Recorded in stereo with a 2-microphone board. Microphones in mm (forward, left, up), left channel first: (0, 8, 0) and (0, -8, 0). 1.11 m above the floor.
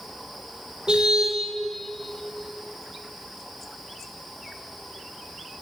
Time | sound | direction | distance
0.9 | a car horn | 65° right (ahead or behind) | 2 m